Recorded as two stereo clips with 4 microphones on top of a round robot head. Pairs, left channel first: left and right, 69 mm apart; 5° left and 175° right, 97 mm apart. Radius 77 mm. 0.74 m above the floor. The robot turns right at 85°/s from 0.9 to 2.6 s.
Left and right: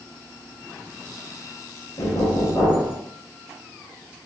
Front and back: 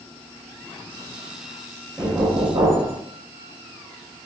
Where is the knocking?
105° left, 1.2 m; by 3.0 s 155° left, 1.2 m.